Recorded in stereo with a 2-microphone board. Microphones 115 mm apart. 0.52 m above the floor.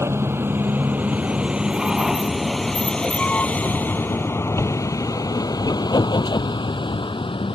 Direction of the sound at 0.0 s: 25° right (ahead or behind).